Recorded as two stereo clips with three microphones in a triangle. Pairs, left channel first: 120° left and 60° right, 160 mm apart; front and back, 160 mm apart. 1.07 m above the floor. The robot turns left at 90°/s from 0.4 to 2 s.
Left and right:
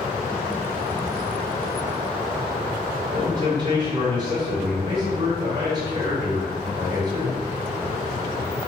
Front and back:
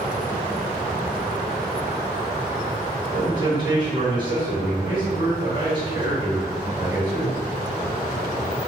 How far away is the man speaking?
About 1.6 m.